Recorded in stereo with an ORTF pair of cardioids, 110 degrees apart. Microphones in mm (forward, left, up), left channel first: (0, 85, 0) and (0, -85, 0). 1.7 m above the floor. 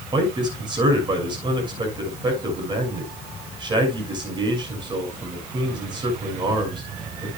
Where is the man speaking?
25° right, 6.5 m.